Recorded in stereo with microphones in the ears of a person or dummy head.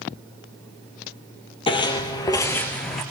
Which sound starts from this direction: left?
Footsteps, at 1.7 s.